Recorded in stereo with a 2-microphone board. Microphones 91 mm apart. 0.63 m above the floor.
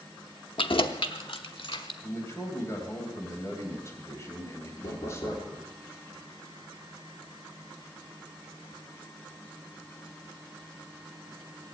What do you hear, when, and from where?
0.6 s keys jangling: 70° left (ahead or behind), 0.7 m; by 1.9 s 80° left, 1.4 m
2.0 s a man speaking: 30° left (ahead or behind), 3.5 m
4.8 s knocking: 55° left (ahead or behind), 8.5 m